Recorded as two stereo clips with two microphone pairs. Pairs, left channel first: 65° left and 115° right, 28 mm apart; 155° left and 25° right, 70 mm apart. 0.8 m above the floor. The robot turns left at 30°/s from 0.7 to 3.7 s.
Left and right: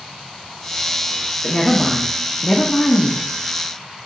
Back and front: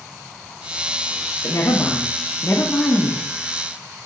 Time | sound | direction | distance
1.4 | a woman speaking | 145° left | 0.7 m